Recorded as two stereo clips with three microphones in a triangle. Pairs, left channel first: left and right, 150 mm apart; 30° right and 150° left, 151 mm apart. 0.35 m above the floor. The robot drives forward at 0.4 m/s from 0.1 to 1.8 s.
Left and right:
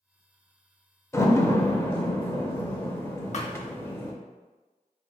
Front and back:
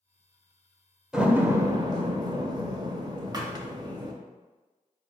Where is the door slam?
75° left, 0.5 m; by 4.1 s 140° left, 0.6 m.